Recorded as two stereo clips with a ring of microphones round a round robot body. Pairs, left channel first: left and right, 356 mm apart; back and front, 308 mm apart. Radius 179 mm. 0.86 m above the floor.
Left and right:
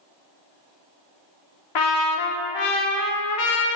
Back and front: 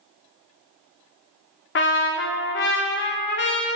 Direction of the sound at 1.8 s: 125° left.